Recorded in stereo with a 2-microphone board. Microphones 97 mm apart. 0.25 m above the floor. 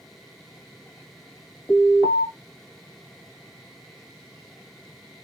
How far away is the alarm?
About 2 m.